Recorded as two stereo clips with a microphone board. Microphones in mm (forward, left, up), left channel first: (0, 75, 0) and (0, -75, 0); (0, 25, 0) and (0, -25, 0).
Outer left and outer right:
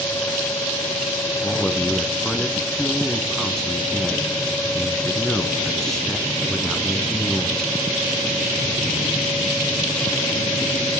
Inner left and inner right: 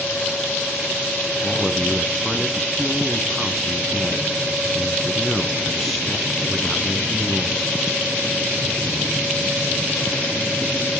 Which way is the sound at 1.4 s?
5° left (ahead or behind).